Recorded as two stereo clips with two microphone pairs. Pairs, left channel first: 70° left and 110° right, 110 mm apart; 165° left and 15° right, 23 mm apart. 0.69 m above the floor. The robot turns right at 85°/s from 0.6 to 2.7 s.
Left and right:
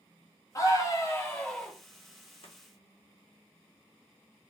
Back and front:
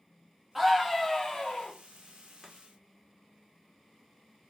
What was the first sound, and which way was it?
A scream, 65° left.